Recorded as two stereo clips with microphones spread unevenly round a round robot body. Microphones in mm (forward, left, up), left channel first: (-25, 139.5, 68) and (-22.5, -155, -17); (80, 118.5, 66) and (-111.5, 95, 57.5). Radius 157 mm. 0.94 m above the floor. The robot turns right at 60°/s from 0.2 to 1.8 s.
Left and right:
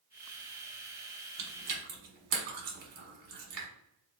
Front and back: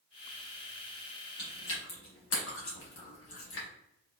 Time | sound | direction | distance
1.4 | chewing | 50° right | 1.0 m